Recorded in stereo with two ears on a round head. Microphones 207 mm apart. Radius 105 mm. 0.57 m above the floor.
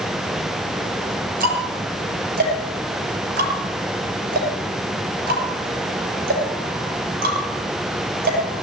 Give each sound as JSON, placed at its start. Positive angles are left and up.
{"t": 1.4, "sound": "ticking", "side_deg": -40, "distance_m": 6.5}